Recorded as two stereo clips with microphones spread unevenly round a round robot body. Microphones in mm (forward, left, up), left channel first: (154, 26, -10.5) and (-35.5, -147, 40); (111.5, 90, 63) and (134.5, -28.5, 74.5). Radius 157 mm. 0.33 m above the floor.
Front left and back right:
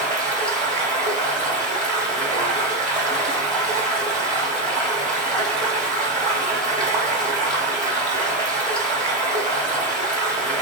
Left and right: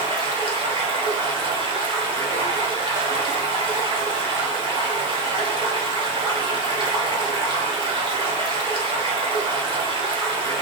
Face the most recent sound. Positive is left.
turn(degrees=-80)